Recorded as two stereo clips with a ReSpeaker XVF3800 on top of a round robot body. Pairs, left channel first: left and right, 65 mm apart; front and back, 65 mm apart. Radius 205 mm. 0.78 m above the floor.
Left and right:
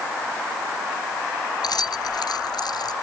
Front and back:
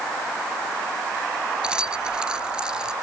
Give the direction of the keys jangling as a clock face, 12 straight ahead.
9 o'clock.